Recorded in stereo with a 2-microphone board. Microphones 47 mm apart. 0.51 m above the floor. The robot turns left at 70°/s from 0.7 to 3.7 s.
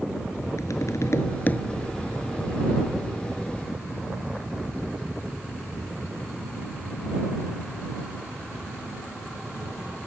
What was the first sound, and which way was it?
Tapping, 90° left.